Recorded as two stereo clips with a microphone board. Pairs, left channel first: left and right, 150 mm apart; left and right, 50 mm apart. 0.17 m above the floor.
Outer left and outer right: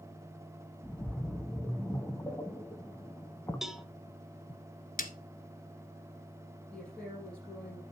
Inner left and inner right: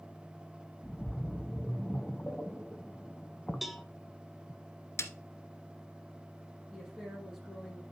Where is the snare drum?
65° left (ahead or behind), 1.0 m.